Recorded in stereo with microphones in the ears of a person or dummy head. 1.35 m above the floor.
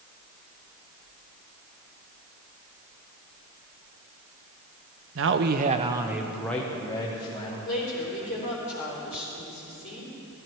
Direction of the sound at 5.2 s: 65° right (ahead or behind).